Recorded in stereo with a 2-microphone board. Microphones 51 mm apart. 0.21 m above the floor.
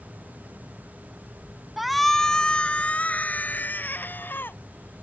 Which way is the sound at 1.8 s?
5° right (ahead or behind).